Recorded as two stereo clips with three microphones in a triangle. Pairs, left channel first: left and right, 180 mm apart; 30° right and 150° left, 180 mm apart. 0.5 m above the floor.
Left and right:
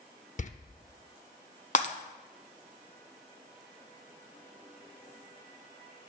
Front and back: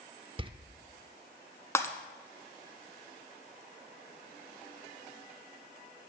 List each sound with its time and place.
0.4 s a door slam: 105° left, 0.6 m
1.8 s breaking glass: 45° left, 0.9 m